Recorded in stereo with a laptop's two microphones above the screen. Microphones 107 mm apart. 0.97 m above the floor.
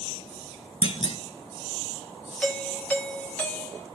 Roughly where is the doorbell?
Centre.